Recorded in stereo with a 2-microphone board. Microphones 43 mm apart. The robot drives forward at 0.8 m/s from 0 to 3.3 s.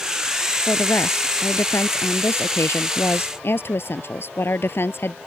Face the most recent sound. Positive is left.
turn(degrees=60)  # may be behind; listen again after turning